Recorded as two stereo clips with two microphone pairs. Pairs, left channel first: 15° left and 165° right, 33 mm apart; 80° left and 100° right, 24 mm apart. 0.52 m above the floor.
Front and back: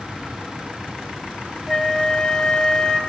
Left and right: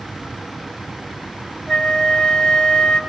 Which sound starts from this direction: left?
A flute, at 1.7 s.